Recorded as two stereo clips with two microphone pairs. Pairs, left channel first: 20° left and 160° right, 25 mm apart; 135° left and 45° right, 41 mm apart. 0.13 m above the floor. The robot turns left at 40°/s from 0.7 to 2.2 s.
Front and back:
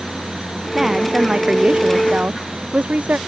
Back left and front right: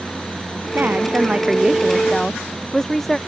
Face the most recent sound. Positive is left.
turn(degrees=-145)